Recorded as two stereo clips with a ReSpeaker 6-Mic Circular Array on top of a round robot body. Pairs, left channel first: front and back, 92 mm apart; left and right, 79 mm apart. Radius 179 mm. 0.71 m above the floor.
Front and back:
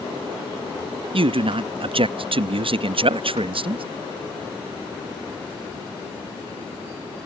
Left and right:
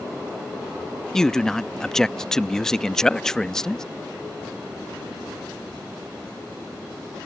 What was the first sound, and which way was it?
A man speaking, 170° left.